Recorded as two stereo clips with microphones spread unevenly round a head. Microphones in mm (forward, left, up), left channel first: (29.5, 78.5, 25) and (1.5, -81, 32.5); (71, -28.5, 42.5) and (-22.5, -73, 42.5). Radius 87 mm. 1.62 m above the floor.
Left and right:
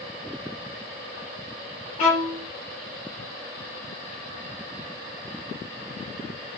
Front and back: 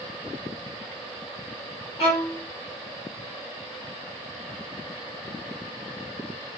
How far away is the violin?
About 2 m.